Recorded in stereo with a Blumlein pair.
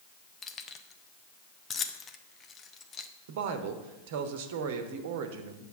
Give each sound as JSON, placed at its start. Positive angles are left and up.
{"t": 0.4, "sound": "keys jangling", "azimuth_deg": 20, "distance_m": 0.8}
{"t": 3.3, "sound": "a woman speaking", "azimuth_deg": -50, "distance_m": 1.2}